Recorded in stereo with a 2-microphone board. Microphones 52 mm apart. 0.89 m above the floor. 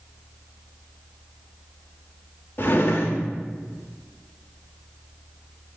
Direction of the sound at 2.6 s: 45° left (ahead or behind).